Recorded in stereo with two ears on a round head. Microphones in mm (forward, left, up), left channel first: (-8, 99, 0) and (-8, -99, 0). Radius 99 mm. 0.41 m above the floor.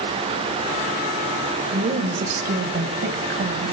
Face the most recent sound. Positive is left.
turn(degrees=-50)  # may be behind; listen again after turning